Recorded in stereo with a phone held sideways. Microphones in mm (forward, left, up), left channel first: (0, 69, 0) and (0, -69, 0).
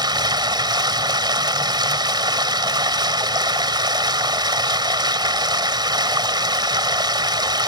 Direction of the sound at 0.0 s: 30° right (ahead or behind).